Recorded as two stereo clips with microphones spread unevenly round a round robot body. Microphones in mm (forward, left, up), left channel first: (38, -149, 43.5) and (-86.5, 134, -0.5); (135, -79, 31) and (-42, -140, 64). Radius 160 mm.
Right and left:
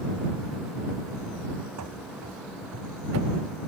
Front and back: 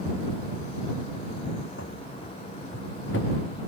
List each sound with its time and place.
1.8 s running footsteps: 70° left; by 3.4 s 65° left